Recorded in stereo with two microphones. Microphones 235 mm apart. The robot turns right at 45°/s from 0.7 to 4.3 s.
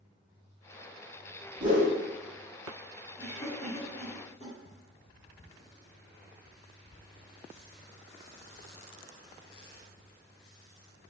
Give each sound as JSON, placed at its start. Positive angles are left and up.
{"t": 1.6, "sound": "a whoosh", "side_deg": -30, "distance_m": 1.5}
{"t": 3.2, "sound": "a cough", "side_deg": 25, "distance_m": 1.5}